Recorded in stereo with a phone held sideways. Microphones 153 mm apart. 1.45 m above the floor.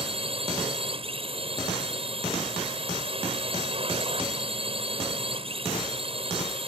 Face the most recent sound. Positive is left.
turn(degrees=-40)  # may be behind; listen again after turning